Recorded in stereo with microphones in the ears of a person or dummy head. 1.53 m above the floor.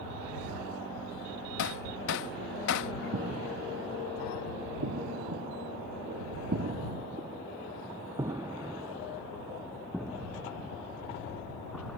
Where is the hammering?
65° left (ahead or behind).